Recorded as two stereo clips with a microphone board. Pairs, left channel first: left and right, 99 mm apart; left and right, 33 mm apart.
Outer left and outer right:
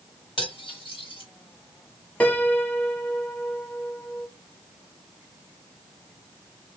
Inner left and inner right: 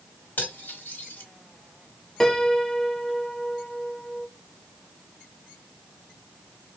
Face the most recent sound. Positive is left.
turn(degrees=15)  # may be behind; listen again after turning